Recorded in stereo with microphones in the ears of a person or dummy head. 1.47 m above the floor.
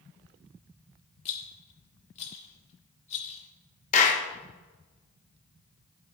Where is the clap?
45° left (ahead or behind), 1.1 m.